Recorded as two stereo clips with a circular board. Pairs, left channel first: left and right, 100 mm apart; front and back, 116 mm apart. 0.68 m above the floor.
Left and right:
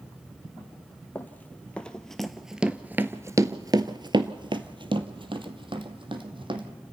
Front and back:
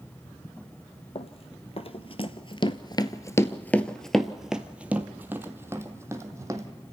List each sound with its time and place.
1.1 s running footsteps: 20° left, 1.3 m; by 6.7 s 120° right, 2.0 m